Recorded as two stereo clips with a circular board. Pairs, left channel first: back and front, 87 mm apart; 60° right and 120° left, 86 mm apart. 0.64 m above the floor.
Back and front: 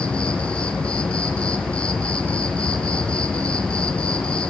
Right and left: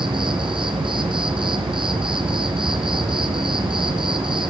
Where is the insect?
100° left, 3.5 m.